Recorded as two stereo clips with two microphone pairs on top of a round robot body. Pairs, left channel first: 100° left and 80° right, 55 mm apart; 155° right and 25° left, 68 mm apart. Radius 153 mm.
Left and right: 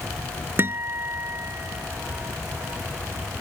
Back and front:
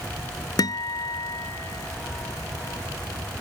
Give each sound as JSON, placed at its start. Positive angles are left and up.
{"t": 0.6, "sound": "a guitar", "azimuth_deg": -125}